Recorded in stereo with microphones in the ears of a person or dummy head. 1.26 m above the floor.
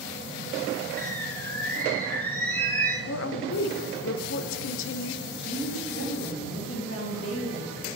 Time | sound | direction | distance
1.0 | a bird | 15° left (ahead or behind) | 0.8 m
3.1 | a woman speaking | 65° left (ahead or behind) | 0.6 m
5.3 | a woman speaking | 85° left | 3 m